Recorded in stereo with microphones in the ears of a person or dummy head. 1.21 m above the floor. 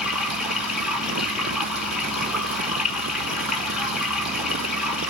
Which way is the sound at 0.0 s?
Centre (ahead or behind).